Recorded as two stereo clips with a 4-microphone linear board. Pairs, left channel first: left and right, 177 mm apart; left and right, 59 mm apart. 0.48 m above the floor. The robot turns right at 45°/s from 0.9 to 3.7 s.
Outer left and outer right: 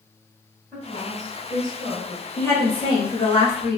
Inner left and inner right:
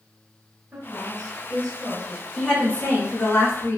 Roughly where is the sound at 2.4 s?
Ahead.